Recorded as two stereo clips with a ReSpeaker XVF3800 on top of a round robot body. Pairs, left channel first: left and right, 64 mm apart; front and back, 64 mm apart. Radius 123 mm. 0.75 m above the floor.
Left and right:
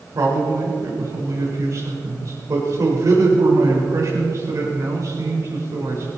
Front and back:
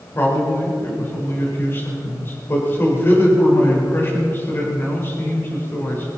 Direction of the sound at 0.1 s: 55° right.